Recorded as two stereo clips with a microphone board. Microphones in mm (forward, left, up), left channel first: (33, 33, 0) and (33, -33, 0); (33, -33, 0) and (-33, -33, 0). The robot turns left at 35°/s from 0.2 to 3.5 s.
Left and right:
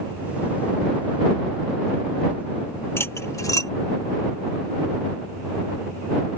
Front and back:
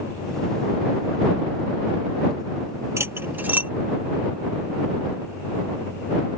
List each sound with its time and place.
3.0 s cutlery clinking: 135° left; by 3.7 s 120° left